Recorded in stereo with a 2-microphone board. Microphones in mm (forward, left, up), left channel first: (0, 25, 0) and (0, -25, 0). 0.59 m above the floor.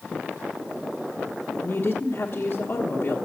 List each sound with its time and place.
1.6 s a woman speaking: 35° left (ahead or behind), 1.1 m